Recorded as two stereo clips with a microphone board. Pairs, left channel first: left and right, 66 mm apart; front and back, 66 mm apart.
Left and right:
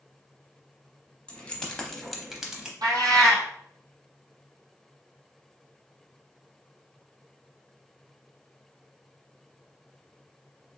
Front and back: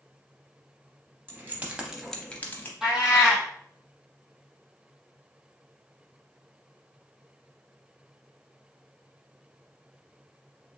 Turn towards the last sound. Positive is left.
turn(degrees=-100)